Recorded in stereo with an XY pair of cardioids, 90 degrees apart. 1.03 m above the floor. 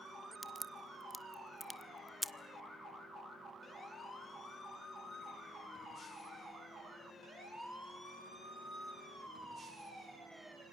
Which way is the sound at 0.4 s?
Straight ahead.